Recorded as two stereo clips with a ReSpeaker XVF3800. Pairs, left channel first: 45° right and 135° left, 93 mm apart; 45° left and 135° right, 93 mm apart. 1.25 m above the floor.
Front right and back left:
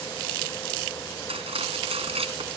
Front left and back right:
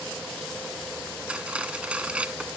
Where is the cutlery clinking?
145° left.